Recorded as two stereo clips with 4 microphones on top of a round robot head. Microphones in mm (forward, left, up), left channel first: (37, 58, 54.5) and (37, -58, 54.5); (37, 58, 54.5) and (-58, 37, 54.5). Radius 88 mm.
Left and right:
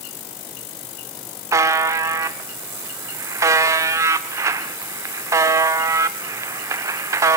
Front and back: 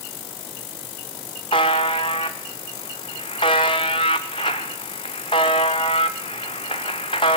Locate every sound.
1.5 s a buzzer: 35° right, 0.6 m